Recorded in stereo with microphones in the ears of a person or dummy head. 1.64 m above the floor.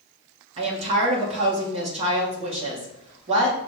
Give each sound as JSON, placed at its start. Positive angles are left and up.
{"t": 0.6, "sound": "a woman speaking", "side_deg": -35, "distance_m": 1.3}